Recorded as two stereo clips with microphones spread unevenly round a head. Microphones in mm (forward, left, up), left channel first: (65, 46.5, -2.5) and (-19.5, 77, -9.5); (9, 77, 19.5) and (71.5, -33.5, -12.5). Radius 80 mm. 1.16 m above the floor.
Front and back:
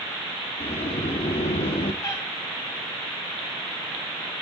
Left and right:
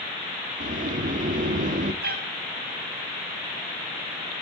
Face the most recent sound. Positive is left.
turn(degrees=-90)